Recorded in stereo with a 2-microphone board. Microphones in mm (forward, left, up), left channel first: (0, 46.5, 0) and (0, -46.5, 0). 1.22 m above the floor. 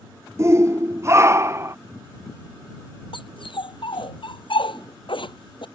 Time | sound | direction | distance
0.4 | a shout | 30° right (ahead or behind) | ?
3.1 | a dog barking | 65° left (ahead or behind) | ?